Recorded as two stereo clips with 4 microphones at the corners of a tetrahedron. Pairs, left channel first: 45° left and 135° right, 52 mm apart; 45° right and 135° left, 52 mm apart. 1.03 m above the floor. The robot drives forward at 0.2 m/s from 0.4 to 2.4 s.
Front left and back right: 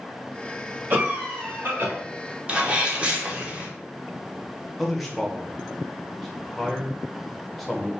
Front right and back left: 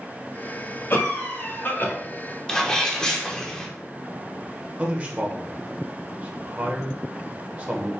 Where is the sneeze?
105° right, 0.8 m.